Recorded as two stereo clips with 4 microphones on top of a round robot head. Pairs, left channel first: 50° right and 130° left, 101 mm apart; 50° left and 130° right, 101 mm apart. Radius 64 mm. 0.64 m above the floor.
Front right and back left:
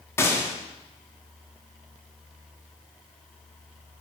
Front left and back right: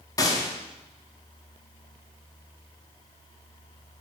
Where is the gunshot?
10° left, 1.5 m.